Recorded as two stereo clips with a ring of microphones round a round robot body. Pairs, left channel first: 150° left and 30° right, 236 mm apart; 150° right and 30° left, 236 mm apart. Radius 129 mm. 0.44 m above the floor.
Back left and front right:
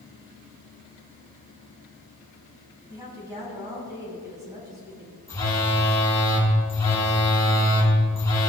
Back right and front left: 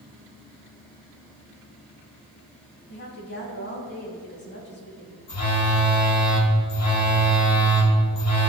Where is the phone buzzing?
130° right, 3.5 m.